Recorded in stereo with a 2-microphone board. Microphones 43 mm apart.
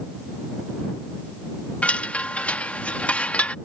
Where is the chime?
30° left (ahead or behind).